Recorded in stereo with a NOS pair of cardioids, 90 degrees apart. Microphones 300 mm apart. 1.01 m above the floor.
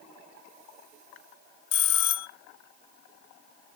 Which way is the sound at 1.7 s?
65° left.